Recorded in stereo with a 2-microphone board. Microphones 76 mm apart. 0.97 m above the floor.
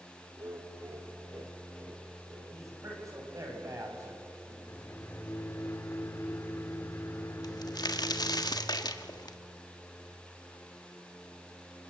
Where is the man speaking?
45° right (ahead or behind), 7 m.